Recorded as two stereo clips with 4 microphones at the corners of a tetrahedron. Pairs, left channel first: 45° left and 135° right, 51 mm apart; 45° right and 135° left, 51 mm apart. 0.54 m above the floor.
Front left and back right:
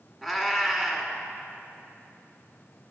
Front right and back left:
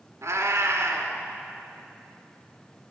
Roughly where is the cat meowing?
Behind left.